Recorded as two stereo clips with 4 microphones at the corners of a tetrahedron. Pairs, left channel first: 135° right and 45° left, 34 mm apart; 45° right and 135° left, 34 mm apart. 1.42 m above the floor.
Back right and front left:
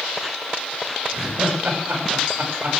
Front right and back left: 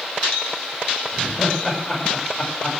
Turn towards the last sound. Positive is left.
turn(degrees=40)